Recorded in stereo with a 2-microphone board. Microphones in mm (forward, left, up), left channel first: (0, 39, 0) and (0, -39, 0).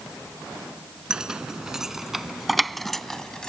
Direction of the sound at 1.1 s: 10° right (ahead or behind).